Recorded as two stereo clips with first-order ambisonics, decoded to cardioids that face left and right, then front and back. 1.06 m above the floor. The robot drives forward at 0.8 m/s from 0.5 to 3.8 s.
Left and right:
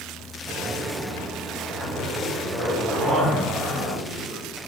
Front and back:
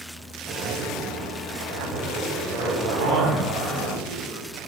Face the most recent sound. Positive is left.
turn(degrees=-170)